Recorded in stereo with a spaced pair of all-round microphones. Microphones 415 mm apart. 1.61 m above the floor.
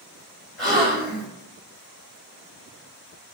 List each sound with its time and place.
0.6 s a gasp: 25° right (ahead or behind), 1.7 m